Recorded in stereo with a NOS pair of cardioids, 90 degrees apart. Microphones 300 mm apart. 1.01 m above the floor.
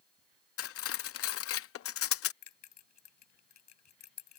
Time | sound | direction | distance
0.6 | cutlery clinking | 50° left | ?
2.4 | a bell | 65° left | ?